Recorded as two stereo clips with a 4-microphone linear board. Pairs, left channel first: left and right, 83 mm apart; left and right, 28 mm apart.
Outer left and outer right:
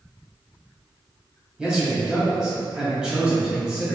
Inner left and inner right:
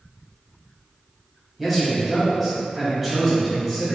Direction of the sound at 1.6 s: 10° right (ahead or behind).